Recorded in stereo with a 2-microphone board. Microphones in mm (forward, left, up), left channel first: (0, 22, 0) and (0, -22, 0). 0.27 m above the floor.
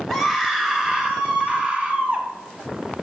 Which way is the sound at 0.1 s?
Centre (ahead or behind).